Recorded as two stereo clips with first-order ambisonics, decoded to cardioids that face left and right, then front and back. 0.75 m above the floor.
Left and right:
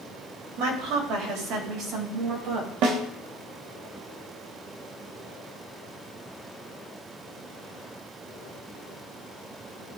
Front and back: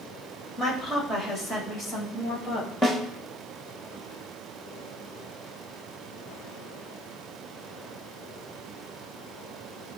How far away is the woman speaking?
About 3 m.